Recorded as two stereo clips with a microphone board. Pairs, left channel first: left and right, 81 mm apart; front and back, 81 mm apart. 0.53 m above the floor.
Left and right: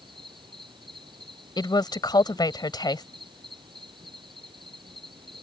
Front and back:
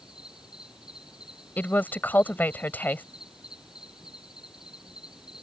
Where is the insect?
100° right.